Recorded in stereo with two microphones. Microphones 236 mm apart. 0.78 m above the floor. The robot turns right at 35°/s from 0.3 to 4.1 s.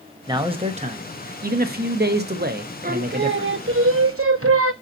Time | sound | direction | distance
0.3 | a man speaking | 155° right | 0.9 m
2.8 | singing | 140° right | 0.7 m